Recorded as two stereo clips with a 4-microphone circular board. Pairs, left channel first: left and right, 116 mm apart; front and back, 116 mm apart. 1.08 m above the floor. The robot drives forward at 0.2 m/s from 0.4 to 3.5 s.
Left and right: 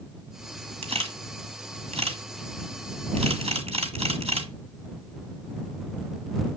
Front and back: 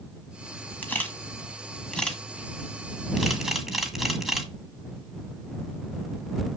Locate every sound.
0.8 s a camera shutter: 75° right, 1.8 m; by 4.5 s 95° right, 1.8 m